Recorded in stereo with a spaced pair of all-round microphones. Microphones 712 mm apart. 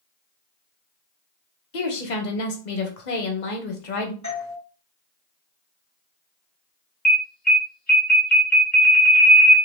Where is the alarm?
25° left (ahead or behind), 1.4 m.